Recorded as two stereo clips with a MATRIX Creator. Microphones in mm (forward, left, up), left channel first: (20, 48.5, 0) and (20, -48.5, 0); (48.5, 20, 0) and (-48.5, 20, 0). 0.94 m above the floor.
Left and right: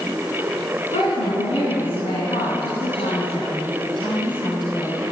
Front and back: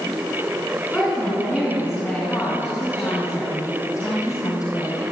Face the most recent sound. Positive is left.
turn(degrees=45)